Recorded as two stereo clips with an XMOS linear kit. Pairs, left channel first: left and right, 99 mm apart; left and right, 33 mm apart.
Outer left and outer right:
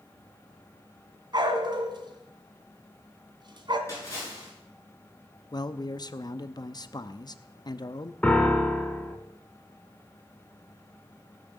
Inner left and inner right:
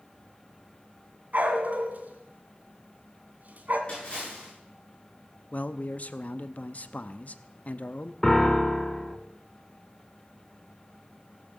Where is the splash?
30° left (ahead or behind), 8.5 m.